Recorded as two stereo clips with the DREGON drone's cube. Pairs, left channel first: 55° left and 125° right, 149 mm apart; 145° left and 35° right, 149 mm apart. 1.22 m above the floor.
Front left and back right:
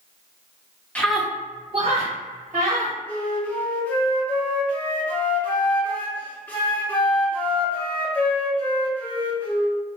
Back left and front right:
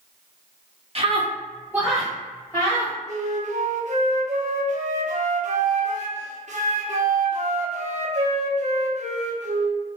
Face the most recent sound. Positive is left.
turn(degrees=-20)